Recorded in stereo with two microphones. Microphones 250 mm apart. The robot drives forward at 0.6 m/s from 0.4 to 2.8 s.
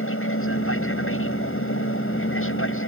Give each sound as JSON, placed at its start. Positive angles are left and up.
{"t": 0.0, "sound": "an aircraft", "side_deg": 55}